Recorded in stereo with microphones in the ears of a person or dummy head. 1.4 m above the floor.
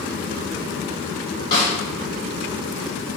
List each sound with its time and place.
1.5 s a snare drum: 30° left (ahead or behind), 1.6 m